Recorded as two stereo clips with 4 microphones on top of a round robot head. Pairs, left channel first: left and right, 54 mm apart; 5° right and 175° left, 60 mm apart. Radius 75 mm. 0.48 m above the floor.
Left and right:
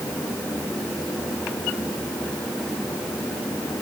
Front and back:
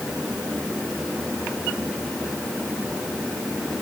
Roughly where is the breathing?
I don't hear breathing.